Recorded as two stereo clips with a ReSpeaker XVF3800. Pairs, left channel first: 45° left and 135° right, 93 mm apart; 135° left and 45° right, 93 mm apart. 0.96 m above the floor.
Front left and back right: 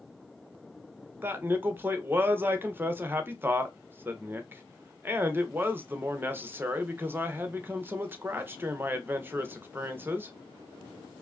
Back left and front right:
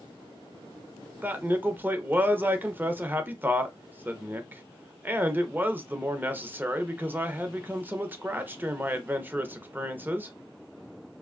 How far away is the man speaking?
About 0.7 m.